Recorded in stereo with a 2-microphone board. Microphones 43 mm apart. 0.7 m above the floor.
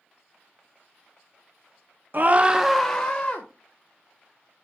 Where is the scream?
45° right (ahead or behind), 0.7 m; by 3.5 s 25° left (ahead or behind), 1.3 m.